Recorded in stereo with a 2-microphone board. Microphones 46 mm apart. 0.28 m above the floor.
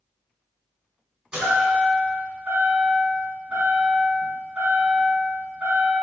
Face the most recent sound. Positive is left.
turn(degrees=-20)  # may be behind; listen again after turning